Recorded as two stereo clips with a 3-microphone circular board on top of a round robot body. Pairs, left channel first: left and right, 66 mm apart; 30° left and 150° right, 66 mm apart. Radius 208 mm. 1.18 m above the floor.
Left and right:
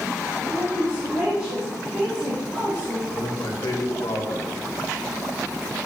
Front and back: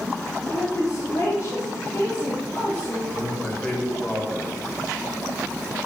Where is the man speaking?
100° left, 2.5 m.